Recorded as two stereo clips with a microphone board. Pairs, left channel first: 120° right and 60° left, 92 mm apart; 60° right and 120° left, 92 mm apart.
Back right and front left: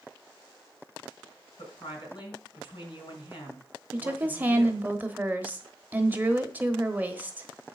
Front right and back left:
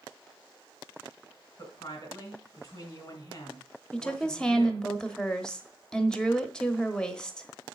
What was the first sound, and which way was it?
A woman speaking, 110° right.